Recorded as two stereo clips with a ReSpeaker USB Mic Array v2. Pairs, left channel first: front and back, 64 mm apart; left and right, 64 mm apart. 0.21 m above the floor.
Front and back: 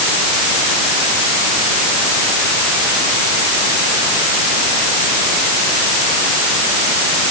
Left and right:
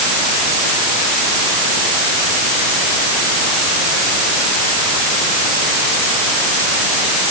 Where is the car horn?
I don't hear a car horn.